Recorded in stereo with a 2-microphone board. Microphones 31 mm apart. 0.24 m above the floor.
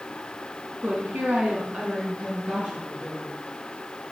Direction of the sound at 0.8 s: 55° right (ahead or behind).